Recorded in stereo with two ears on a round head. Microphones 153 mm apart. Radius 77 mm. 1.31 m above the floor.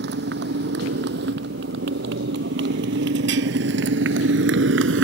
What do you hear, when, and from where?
0.0 s a motorcycle: 70° right (ahead or behind); by 5.0 s 80° right